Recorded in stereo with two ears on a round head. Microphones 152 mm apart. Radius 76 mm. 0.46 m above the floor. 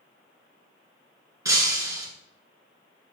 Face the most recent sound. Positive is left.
turn(degrees=-20)  # may be behind; listen again after turning